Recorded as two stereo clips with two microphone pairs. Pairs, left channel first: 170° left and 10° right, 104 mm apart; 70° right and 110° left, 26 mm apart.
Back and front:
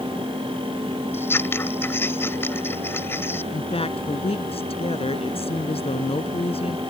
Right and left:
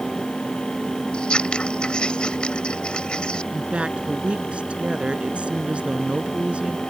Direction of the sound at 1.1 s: 120° right.